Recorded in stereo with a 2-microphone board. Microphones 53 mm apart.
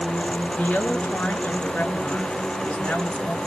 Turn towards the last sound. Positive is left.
turn(degrees=35)  # may be behind; listen again after turning